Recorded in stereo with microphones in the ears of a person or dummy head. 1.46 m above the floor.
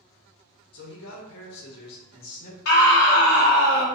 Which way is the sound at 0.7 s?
60° left (ahead or behind).